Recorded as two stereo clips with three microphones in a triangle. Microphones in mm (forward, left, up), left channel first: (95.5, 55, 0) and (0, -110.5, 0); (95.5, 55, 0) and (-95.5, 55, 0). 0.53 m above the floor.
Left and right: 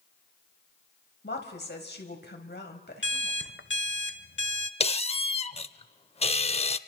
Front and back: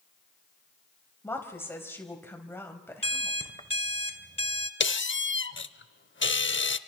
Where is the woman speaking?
75° left, 3.5 m.